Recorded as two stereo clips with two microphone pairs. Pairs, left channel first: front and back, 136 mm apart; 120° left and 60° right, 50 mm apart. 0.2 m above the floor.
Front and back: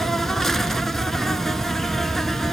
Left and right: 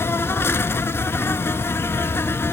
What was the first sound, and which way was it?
An insect, 90° left.